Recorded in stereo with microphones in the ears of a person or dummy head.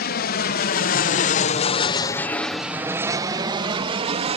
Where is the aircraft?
55° left (ahead or behind); by 4.4 s 30° right (ahead or behind).